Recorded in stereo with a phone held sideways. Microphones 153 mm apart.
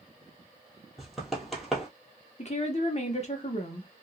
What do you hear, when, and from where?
1.0 s running footsteps: centre (ahead or behind), 1.2 m
2.4 s a woman speaking: 45° left (ahead or behind), 0.9 m